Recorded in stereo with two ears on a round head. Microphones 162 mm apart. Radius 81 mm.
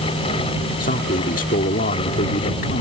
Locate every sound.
0.8 s a man speaking: 50° left (ahead or behind)